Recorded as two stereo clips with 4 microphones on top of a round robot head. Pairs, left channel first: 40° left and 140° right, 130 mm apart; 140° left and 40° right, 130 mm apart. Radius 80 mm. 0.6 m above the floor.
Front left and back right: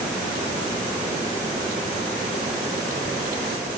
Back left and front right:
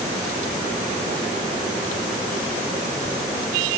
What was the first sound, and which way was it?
Only background noise.